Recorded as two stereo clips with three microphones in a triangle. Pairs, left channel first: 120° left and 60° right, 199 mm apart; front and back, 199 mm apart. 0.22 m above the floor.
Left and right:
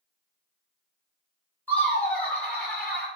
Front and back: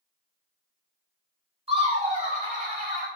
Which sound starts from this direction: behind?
Laughter, at 1.7 s.